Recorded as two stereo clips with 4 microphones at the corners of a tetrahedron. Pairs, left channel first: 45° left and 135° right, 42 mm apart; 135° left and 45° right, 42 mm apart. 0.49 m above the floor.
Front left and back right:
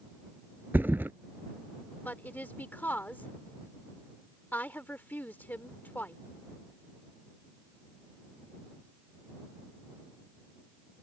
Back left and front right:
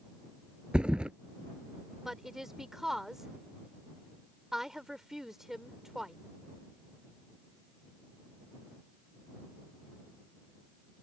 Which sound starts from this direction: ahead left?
A woman speaking, at 2.0 s.